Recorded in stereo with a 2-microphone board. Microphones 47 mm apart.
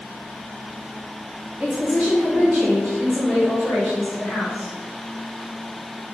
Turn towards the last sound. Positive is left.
turn(degrees=50)  # may be behind; listen again after turning